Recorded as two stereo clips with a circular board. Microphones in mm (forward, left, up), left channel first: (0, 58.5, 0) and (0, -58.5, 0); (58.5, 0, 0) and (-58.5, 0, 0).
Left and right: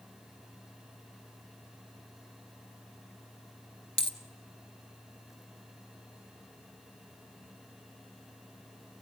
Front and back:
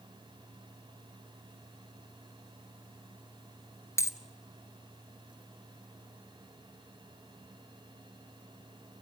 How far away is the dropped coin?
About 0.8 m.